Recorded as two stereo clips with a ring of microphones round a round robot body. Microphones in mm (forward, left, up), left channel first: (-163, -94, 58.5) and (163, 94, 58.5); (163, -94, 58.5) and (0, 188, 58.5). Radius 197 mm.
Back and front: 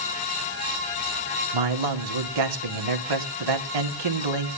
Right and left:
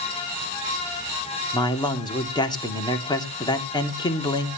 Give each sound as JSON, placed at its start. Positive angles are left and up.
{"t": 1.5, "sound": "a man speaking", "azimuth_deg": 15, "distance_m": 2.5}